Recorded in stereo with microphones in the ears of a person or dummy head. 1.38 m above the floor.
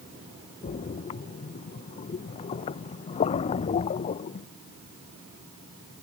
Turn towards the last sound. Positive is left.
turn(degrees=35)  # may be behind; listen again after turning